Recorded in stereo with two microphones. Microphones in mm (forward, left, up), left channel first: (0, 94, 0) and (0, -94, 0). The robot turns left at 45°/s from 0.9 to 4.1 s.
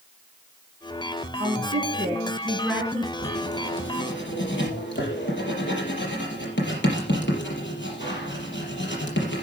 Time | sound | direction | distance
1.4 | a woman speaking | 105° right | 4 m
3.2 | writing | 60° left (ahead or behind) | 5 m